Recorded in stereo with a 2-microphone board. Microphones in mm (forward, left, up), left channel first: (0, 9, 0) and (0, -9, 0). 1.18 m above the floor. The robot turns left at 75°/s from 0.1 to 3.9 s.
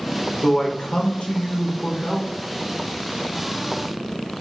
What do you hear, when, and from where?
0.4 s a man speaking: 150° left, 0.9 m; by 2.3 s 10° left, 0.9 m